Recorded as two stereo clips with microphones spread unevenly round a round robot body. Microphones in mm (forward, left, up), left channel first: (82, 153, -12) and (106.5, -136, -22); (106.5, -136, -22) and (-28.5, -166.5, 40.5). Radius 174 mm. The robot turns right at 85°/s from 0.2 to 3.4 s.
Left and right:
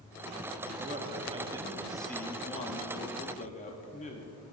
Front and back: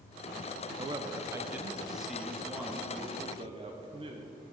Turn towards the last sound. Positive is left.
turn(degrees=120)